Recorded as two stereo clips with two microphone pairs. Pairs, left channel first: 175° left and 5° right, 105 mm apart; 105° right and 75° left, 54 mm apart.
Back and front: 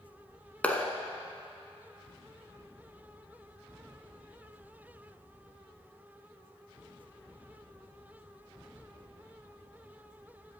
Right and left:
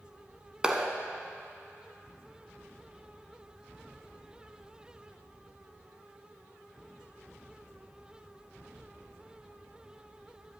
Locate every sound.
0.6 s a clap: 125° left, 0.9 m